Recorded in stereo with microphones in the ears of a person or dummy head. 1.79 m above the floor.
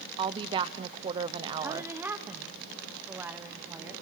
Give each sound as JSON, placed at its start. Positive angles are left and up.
{"t": 0.2, "sound": "a woman speaking", "side_deg": -25, "distance_m": 0.9}
{"t": 1.6, "sound": "a woman speaking", "side_deg": -10, "distance_m": 1.2}